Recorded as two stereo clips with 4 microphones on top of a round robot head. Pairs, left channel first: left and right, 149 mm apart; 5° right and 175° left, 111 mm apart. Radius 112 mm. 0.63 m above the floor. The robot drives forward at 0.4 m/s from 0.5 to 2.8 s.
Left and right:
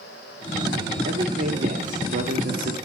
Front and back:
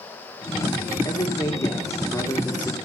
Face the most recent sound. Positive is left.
turn(degrees=-85)